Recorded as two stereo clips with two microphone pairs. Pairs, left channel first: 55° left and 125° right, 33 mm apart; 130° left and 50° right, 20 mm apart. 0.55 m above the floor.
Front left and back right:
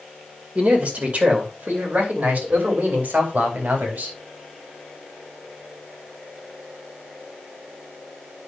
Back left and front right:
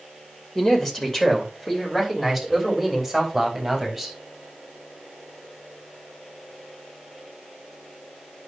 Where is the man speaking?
165° right, 2.5 m; by 4.2 s 125° right, 4 m.